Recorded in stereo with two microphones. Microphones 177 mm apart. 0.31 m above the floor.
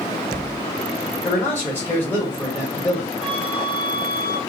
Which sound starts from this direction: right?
A flute, at 3.2 s.